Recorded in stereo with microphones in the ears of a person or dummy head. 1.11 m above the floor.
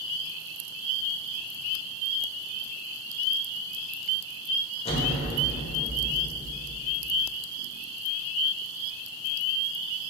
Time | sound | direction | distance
4.8 | an explosion | 30° left (ahead or behind) | 0.9 m